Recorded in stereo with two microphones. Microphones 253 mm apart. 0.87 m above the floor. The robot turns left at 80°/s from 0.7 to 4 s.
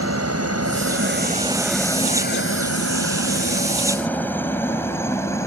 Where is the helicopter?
70° right (ahead or behind); by 5.5 s 10° left (ahead or behind).